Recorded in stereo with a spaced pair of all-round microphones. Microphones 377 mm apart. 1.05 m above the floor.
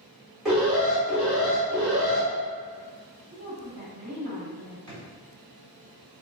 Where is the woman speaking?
75° right (ahead or behind), 1.7 m.